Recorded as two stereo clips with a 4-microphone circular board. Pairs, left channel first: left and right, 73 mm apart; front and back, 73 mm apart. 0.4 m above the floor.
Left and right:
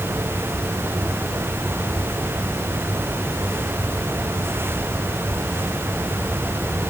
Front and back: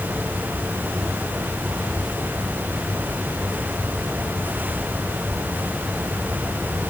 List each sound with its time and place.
Only background noise.